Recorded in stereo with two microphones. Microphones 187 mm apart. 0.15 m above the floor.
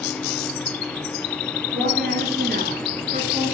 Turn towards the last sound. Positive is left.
turn(degrees=-35)  # may be behind; listen again after turning